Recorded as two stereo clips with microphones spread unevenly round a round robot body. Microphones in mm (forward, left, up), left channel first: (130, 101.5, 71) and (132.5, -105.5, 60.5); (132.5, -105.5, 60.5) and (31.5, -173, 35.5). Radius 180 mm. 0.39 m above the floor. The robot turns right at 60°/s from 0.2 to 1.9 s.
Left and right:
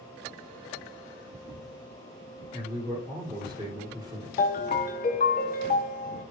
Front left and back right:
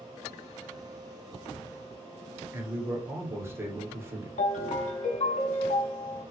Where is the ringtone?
50° left, 0.6 m.